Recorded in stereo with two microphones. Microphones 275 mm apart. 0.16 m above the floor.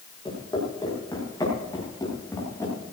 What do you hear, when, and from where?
0.2 s footsteps: 15° left (ahead or behind), 7.5 m; by 2.7 s 10° left (ahead or behind), 9 m